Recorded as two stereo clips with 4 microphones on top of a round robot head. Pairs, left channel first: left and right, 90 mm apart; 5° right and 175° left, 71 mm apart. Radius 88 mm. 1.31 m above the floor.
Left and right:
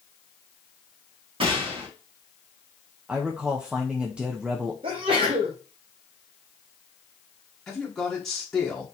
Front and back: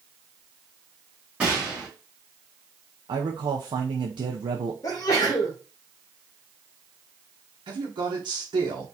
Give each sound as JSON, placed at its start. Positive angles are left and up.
{"t": 1.4, "sound": "a gunshot", "azimuth_deg": -110, "distance_m": 1.7}
{"t": 3.1, "sound": "a man speaking", "azimuth_deg": -170, "distance_m": 0.6}
{"t": 4.8, "sound": "a sneeze", "azimuth_deg": -55, "distance_m": 1.2}
{"t": 7.7, "sound": "a man speaking", "azimuth_deg": 175, "distance_m": 1.1}